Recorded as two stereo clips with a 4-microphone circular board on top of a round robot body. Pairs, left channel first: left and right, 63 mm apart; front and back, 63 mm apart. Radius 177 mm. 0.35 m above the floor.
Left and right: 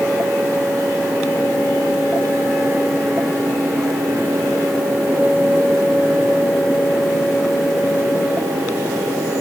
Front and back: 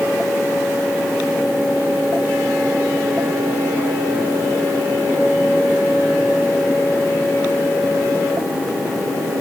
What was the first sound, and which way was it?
Only background noise.